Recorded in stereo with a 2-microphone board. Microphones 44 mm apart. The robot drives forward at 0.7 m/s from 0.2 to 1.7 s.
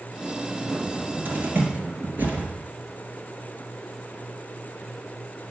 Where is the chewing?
I don't hear chewing.